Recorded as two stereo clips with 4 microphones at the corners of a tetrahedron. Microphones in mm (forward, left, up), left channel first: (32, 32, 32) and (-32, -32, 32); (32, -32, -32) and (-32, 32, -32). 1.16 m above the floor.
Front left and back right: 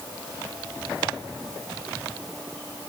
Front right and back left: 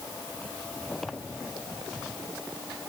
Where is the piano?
I don't hear a piano.